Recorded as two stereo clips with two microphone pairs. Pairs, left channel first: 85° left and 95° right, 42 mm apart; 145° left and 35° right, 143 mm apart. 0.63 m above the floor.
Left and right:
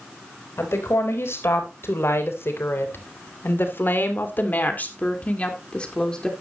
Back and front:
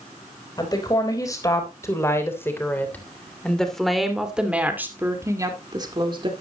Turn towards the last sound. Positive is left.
turn(degrees=10)